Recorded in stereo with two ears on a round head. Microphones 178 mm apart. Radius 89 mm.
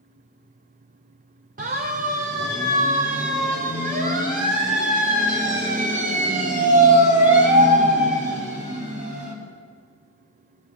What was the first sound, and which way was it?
A siren, 40° right (ahead or behind).